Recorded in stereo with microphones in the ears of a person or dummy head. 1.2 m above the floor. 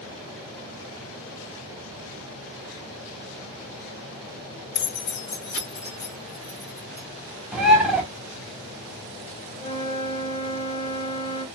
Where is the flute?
60° left (ahead or behind), 1.4 m.